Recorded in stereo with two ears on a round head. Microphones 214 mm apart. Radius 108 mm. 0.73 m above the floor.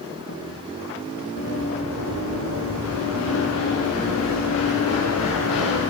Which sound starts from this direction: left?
Running footsteps, at 1.4 s.